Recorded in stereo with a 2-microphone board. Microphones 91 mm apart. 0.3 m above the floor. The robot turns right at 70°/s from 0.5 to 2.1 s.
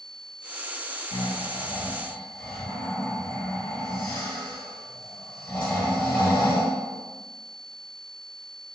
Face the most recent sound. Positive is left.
turn(degrees=165)